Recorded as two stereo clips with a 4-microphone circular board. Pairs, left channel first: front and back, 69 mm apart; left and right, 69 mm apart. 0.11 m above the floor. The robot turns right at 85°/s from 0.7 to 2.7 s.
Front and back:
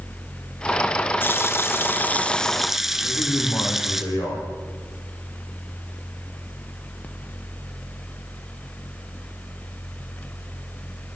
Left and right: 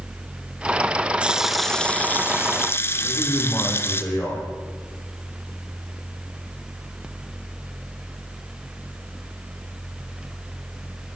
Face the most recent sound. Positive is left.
turn(degrees=30)